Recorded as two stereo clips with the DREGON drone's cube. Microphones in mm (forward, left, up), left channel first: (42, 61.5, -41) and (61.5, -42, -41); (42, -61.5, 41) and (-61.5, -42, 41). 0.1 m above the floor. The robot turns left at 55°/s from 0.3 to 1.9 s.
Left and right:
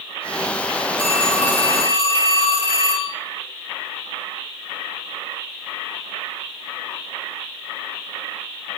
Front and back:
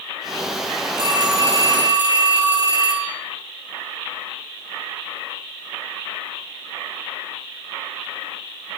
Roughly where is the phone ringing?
Behind left.